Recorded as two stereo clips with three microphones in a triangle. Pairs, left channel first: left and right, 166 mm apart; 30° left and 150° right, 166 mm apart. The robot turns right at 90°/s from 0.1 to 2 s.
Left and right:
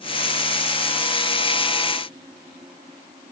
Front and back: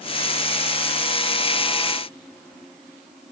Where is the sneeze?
I don't hear a sneeze.